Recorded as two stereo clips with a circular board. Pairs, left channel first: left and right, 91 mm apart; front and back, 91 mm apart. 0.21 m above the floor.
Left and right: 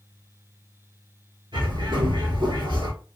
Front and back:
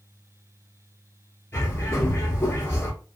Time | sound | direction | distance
1.5 | a bird | 65° right | 1.0 m